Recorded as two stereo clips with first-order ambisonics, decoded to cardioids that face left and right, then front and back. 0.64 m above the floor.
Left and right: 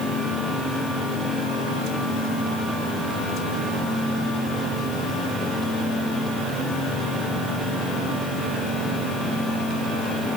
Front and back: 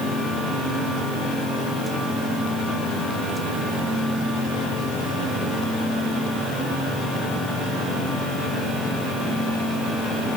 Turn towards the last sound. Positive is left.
No sound to turn to.